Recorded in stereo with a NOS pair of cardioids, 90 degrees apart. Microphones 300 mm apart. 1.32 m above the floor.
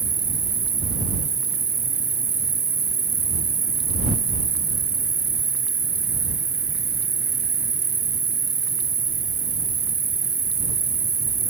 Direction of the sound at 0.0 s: 40° right.